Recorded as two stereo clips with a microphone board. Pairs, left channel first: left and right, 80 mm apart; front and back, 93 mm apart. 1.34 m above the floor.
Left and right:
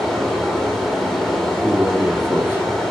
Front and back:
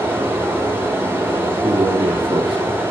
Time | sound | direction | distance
0.0 | running water | 175° left | 1.0 m
1.6 | a man speaking | 155° right | 0.9 m